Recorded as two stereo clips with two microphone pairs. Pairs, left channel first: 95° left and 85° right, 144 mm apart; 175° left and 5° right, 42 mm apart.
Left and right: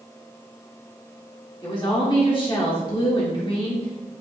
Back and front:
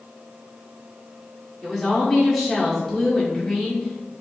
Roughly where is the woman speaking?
Left.